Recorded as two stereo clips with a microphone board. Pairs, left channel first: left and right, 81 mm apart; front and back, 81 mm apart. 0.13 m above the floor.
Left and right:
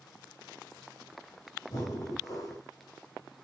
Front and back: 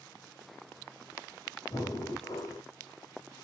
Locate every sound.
1.7 s breathing: 45° left, 6 m